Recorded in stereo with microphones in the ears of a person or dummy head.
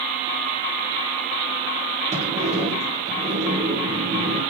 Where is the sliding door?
35° right (ahead or behind), 1.7 m.